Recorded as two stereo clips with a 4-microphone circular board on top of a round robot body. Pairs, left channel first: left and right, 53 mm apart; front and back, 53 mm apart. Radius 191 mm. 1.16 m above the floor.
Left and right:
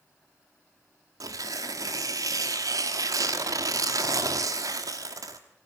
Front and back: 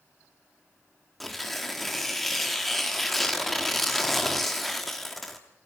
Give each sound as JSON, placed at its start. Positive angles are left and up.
{"t": 1.2, "sound": "tearing paper", "azimuth_deg": -90, "distance_m": 1.2}